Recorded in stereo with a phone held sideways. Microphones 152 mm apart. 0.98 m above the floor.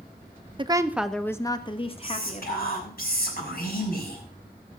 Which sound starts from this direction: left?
Whispering, at 2.0 s.